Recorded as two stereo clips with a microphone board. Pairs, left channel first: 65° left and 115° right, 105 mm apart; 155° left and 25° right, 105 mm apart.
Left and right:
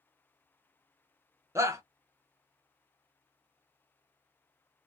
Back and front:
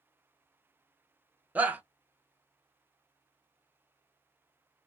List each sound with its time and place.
1.6 s a shout: 85° right, 0.7 m